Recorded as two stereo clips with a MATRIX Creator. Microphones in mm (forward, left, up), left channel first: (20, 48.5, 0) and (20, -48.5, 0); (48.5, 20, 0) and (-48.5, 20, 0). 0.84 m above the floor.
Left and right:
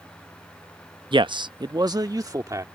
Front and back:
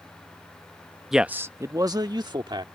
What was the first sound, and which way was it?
A man speaking, 95° right.